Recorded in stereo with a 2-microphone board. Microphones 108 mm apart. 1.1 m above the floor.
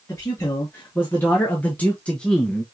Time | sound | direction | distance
0.1 | a man speaking | 25° left (ahead or behind) | 2 m